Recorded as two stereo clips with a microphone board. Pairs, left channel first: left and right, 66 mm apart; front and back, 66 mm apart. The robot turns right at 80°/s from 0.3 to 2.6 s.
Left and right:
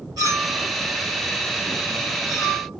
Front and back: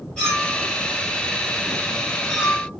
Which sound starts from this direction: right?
A clink, at 0.2 s.